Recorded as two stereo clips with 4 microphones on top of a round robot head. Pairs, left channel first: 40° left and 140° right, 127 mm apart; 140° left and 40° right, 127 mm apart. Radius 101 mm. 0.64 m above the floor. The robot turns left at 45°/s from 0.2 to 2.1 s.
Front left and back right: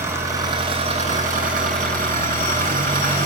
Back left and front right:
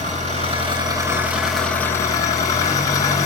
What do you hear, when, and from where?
0.0 s an engine running: 70° right, 6 m; by 3.3 s 155° right, 6 m